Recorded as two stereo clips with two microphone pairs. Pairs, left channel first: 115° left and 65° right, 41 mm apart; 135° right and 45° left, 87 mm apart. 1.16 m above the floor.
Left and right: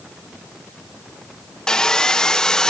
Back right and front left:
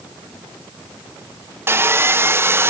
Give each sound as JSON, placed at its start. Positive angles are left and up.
{"t": 1.7, "sound": "sawing", "azimuth_deg": 55, "distance_m": 0.6}